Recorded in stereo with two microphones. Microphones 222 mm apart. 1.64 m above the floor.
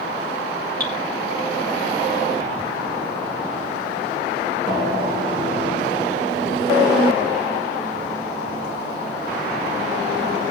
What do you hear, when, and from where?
0.8 s dripping: 45° right (ahead or behind), 8 m